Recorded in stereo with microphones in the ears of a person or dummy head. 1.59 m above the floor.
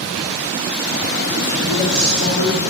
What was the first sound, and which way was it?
A woman speaking, 55° left (ahead or behind).